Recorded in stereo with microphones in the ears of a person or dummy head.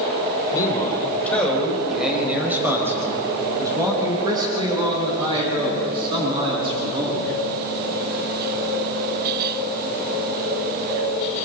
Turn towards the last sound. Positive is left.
turn(degrees=-35)  # may be behind; listen again after turning